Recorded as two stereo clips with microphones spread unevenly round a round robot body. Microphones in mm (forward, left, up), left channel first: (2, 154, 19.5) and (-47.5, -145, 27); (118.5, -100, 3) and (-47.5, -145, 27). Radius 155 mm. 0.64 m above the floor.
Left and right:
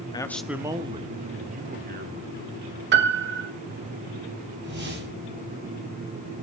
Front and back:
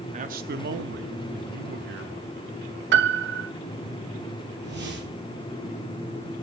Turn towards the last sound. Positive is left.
turn(degrees=-155)